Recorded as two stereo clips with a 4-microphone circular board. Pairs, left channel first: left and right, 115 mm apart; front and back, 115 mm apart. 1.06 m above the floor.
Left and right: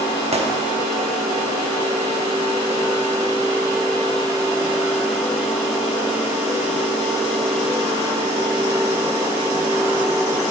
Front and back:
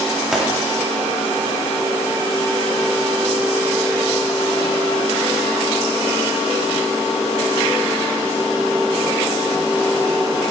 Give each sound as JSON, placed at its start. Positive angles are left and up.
{"t": 0.3, "sound": "a gunshot", "azimuth_deg": -95, "distance_m": 0.8}